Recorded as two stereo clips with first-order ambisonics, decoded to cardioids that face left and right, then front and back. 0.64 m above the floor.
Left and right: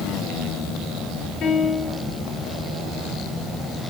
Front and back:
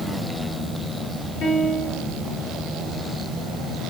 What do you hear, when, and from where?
1.4 s a piano: 40° left, 5.5 m